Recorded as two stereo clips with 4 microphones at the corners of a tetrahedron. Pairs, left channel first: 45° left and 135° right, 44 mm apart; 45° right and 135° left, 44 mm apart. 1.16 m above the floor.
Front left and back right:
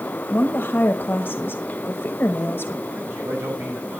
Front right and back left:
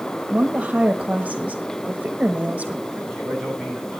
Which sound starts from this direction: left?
A woman speaking, at 0.3 s.